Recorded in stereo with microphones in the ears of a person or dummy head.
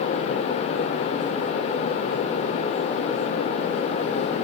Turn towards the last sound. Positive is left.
No sound to turn to.